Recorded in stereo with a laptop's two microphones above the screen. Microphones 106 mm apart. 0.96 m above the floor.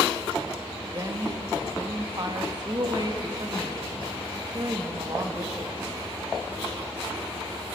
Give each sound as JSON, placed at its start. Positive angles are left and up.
{"t": 0.9, "sound": "a woman speaking", "side_deg": -40, "distance_m": 1.5}